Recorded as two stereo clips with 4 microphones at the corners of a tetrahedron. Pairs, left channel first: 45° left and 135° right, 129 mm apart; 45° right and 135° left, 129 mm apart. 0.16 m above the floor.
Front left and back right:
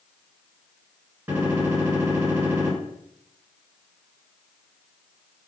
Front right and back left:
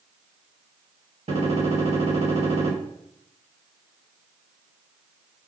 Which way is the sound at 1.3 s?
155° left.